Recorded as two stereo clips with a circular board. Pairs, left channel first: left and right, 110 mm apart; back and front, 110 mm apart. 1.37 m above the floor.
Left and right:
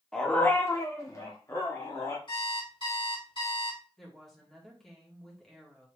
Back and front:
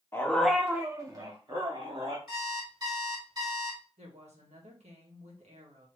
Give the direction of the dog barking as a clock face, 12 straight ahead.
7 o'clock.